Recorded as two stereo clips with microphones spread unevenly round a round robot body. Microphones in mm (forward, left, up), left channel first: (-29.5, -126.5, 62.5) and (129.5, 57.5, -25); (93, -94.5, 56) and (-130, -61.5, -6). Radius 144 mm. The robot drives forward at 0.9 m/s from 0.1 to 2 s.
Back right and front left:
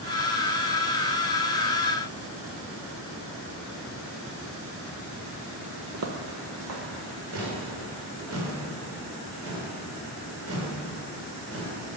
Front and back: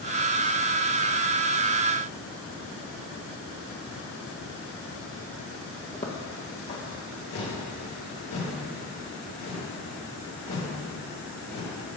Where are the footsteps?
20° left, 1.1 m.